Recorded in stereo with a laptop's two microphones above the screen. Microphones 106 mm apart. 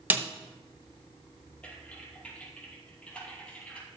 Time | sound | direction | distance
0.1 | a snare drum | 15° right (ahead or behind) | 1.0 m
1.6 | typing on a keyboard | 10° left (ahead or behind) | 4.5 m